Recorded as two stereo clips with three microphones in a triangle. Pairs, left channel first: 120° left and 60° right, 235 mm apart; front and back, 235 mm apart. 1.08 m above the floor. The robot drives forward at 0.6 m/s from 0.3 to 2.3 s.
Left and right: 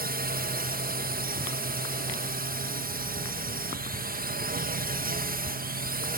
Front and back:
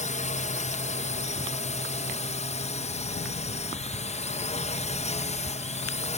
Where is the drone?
40° right; by 6.2 s 45° right.